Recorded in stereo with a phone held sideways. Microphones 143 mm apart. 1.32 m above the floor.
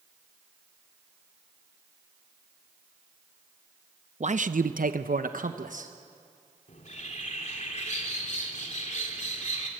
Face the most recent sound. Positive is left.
turn(degrees=55)  # may be behind; listen again after turning